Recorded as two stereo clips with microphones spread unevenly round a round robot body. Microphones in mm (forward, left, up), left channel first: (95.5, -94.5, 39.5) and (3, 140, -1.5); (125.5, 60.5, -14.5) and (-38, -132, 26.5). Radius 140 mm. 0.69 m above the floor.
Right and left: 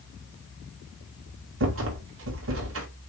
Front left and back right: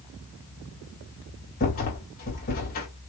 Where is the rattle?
100° left, 2 m.